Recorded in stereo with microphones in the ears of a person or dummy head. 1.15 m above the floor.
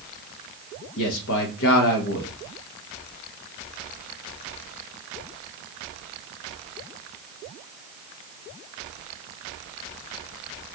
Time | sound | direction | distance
1.0 | a man speaking | 65° left (ahead or behind) | 0.9 m